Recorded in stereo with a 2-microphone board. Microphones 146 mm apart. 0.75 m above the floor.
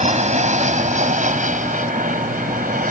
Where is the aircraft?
55° right (ahead or behind); by 2.9 s 70° right (ahead or behind).